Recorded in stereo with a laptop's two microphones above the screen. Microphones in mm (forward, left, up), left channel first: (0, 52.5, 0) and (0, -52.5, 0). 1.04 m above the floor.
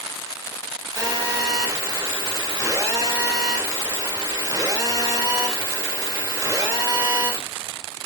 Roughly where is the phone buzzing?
Right.